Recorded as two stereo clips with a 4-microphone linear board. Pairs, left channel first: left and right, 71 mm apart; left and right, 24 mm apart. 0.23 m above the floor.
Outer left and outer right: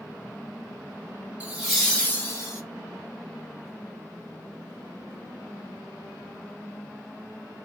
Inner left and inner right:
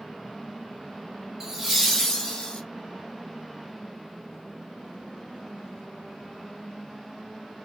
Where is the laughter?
20° right (ahead or behind), 1.0 m; by 2.6 s 45° left (ahead or behind), 1.3 m.